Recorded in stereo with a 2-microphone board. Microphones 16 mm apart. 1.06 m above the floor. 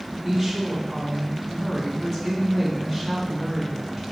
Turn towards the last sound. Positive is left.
turn(degrees=0)  # may be behind; listen again after turning